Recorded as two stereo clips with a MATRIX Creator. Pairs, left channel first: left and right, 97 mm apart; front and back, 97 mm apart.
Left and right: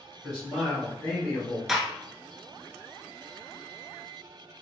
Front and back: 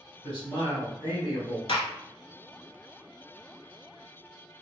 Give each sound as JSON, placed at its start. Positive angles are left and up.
{"t": 0.2, "sound": "a man speaking", "azimuth_deg": -10, "distance_m": 1.9}
{"t": 1.7, "sound": "a gunshot", "azimuth_deg": -5, "distance_m": 0.5}